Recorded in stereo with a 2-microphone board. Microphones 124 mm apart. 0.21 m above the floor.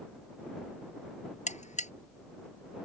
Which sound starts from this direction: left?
A buzzer, at 1.5 s.